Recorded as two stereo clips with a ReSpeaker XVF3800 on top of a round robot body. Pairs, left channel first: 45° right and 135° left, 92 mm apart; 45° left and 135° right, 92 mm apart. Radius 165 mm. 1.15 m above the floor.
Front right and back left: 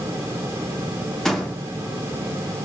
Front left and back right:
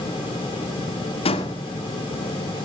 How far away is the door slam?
About 2 m.